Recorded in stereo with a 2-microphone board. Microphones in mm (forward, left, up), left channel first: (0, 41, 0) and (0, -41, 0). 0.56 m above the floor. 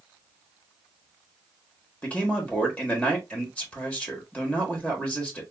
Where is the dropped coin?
No dropped coin in this recording.